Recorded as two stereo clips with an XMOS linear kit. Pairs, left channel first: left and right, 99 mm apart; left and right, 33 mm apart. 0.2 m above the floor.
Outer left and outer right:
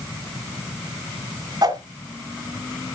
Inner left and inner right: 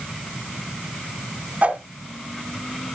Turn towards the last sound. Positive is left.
turn(degrees=-40)  # may be behind; listen again after turning